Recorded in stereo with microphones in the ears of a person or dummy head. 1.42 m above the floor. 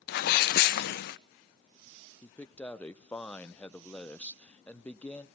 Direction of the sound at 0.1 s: 65° left (ahead or behind).